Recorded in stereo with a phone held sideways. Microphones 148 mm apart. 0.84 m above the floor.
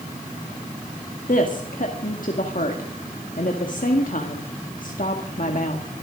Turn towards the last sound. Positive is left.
turn(degrees=65)  # may be behind; listen again after turning